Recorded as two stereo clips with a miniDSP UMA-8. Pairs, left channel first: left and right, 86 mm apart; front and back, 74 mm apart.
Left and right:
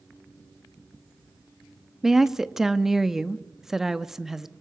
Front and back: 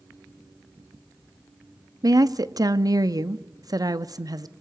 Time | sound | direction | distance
2.0 | a woman speaking | 175° right | 0.9 m